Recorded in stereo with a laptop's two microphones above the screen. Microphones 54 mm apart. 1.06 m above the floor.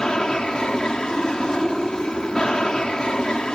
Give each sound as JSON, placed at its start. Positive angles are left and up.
{"t": 0.0, "sound": "an aircraft", "side_deg": 15}